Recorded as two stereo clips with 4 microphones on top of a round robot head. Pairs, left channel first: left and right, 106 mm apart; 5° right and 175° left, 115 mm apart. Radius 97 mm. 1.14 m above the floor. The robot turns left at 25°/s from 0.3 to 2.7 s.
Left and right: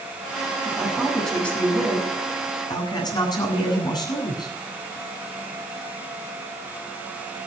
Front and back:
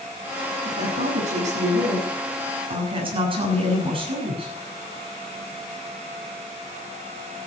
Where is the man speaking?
170° right, 8.5 m; by 4.5 s 140° left, 8.5 m.